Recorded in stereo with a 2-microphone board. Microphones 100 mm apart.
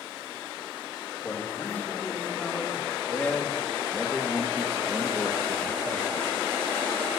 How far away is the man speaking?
About 3 m.